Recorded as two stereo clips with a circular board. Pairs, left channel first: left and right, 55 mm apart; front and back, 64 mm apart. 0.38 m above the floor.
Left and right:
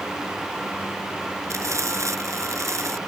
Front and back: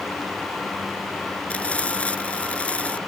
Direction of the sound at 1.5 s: 70° right.